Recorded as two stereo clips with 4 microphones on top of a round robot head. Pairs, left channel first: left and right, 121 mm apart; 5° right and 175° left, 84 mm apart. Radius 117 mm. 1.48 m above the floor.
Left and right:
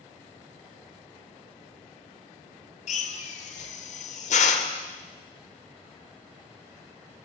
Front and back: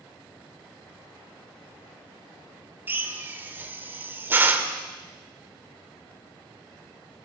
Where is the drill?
110° left, 2.5 m.